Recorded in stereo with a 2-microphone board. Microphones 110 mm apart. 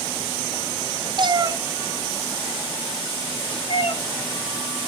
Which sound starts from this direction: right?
A cat meowing, at 1.2 s.